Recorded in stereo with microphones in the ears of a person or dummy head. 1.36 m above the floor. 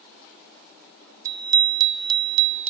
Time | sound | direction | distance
1.2 | a bicycle bell | 10° right (ahead or behind) | ?